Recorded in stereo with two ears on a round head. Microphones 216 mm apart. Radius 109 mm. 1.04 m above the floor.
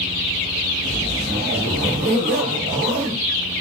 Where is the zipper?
45° right (ahead or behind), 1.1 m.